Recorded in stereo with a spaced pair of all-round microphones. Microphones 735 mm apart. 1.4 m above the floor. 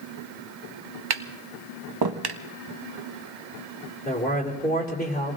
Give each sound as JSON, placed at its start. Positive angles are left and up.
{"t": 1.1, "sound": "tapping", "side_deg": -35, "distance_m": 0.6}
{"t": 4.0, "sound": "a man speaking", "side_deg": 10, "distance_m": 3.5}